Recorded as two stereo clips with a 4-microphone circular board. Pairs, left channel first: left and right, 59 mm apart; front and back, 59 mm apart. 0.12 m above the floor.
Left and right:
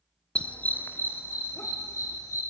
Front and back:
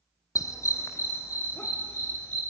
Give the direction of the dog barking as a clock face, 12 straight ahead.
11 o'clock.